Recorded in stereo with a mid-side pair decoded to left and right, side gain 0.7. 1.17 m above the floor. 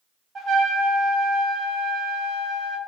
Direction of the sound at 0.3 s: 25° right.